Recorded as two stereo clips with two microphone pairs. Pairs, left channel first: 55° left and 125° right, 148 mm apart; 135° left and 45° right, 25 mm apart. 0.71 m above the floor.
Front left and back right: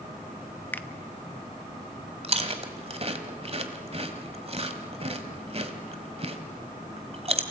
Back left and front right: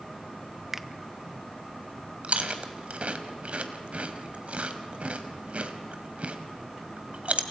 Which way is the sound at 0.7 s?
5° right.